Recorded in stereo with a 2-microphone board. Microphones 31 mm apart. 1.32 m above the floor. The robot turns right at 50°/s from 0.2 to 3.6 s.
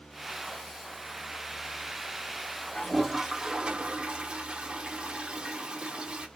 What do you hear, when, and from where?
2.8 s a toilet flushing: 170° left, 0.6 m; by 6.3 s 145° right, 0.6 m